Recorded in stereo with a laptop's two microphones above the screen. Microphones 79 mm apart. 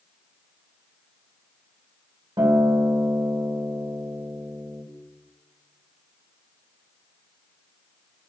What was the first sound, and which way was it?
A guitar, 70° right (ahead or behind).